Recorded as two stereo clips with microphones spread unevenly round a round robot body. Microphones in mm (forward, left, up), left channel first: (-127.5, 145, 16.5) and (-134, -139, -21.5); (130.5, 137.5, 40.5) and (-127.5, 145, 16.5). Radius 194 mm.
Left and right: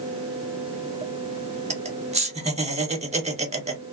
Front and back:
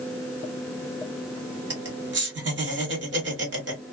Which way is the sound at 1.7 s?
150° right.